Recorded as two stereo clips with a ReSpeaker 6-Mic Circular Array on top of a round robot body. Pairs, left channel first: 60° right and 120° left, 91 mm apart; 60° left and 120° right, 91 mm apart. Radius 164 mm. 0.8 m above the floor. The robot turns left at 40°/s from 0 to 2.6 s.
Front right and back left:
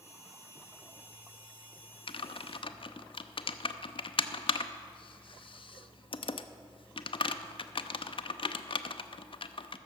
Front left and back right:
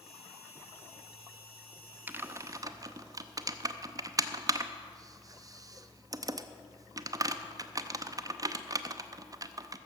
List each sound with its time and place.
2.1 s typing on a keyboard: 50° right, 0.6 m; by 9.8 s 70° right, 0.6 m